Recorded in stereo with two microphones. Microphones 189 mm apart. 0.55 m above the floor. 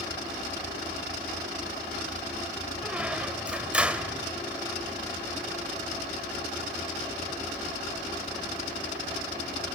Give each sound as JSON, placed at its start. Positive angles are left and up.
{"t": 2.8, "sound": "a squeak", "side_deg": -5, "distance_m": 1.1}